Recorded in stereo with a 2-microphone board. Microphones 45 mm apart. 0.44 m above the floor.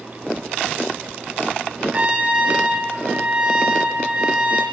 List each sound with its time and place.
1.9 s a trumpet: 20° right (ahead or behind), 4.5 m